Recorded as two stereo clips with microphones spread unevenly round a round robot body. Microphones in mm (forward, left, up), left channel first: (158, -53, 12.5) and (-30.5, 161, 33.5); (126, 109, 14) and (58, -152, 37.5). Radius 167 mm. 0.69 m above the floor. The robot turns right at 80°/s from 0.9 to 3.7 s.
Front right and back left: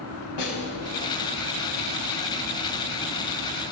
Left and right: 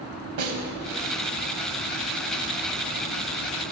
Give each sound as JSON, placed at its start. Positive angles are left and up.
{"t": 0.4, "sound": "a snare drum", "azimuth_deg": -85, "distance_m": 0.9}